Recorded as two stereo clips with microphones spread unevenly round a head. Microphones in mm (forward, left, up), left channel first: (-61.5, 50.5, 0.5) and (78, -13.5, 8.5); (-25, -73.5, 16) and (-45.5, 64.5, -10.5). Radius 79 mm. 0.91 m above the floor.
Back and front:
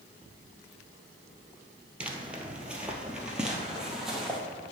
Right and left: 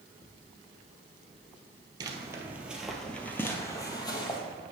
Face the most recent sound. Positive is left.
turn(degrees=-110)